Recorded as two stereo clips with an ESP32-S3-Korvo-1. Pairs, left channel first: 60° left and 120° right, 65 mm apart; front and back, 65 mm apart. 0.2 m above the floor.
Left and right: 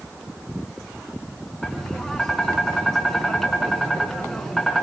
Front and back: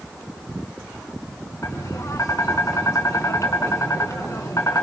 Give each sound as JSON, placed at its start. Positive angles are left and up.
{"t": 1.6, "sound": "tapping", "azimuth_deg": -25, "distance_m": 2.5}